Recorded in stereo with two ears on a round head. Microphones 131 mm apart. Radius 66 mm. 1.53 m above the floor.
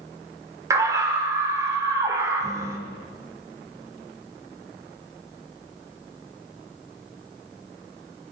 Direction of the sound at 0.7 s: 20° right (ahead or behind).